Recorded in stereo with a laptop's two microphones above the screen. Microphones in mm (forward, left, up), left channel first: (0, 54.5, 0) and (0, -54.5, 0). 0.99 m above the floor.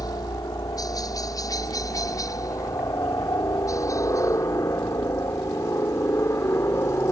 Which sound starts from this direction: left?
A helicopter, at 0.0 s.